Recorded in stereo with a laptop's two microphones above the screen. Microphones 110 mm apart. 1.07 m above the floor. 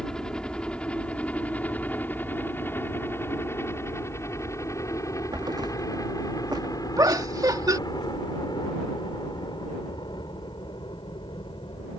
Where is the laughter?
35° right (ahead or behind).